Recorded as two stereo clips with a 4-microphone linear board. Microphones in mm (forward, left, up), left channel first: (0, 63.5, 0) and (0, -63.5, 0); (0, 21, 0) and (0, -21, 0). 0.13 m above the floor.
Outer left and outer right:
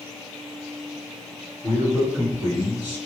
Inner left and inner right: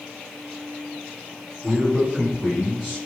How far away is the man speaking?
About 1.9 m.